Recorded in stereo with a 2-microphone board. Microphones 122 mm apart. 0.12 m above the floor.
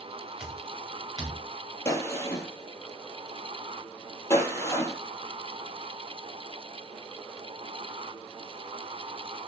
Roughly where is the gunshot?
Left.